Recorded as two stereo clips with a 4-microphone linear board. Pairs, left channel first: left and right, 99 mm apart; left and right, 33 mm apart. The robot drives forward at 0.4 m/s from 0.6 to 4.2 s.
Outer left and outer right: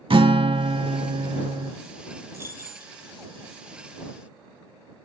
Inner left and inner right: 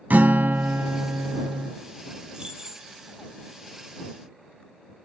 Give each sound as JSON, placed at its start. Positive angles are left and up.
{"t": 0.1, "sound": "a guitar", "side_deg": -65, "distance_m": 0.5}
{"t": 2.3, "sound": "keys jangling", "side_deg": -25, "distance_m": 0.6}